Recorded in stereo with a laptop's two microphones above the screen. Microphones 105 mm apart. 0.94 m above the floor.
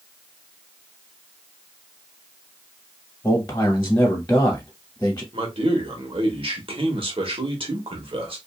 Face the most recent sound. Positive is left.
turn(degrees=-60)  # may be behind; listen again after turning